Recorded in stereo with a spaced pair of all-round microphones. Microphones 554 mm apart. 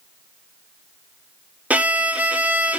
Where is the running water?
I don't hear running water.